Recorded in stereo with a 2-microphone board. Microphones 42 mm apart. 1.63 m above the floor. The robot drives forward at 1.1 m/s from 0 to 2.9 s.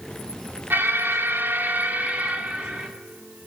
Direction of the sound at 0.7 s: 60° right (ahead or behind).